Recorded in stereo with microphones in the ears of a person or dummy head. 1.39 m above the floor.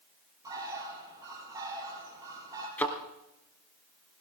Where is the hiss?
No hiss in this recording.